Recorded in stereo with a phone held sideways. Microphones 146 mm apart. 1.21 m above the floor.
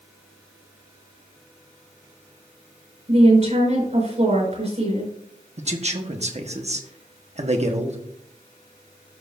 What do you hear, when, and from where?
3.1 s a woman speaking: 55° right (ahead or behind), 5 m
5.6 s a man speaking: 50° right (ahead or behind), 1.1 m